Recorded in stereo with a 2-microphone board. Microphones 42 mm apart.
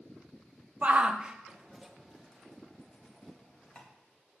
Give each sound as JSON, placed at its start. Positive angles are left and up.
{"t": 0.8, "sound": "a shout", "side_deg": -40, "distance_m": 0.7}